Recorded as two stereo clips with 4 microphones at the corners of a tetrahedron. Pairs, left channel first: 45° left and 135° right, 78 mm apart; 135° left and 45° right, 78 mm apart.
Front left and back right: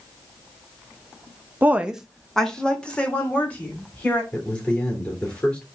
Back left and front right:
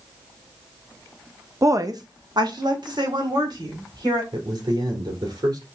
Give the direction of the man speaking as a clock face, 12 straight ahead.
1 o'clock.